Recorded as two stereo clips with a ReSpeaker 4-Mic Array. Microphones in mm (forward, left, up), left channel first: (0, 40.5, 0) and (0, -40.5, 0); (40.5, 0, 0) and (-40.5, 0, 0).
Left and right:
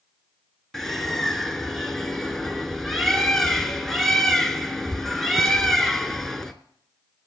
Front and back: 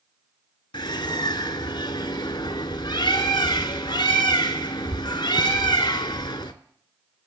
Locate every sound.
0.7 s a bird: 5° left, 0.7 m